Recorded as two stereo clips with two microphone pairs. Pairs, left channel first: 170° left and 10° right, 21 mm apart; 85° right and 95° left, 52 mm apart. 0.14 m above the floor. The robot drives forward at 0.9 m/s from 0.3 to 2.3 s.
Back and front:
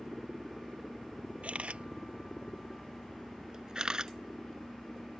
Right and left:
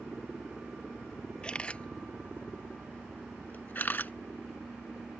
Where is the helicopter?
165° left.